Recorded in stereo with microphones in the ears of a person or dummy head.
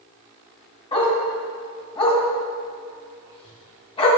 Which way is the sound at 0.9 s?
35° left (ahead or behind).